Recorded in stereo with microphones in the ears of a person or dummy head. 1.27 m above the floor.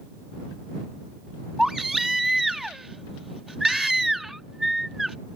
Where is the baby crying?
5° left (ahead or behind).